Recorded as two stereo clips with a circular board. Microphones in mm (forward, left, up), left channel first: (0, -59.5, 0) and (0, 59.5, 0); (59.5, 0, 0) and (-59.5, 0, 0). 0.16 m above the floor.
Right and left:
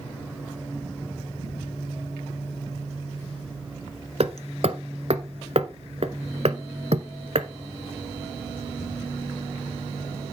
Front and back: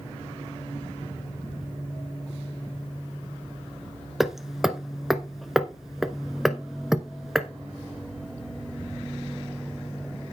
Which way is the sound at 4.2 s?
95° left.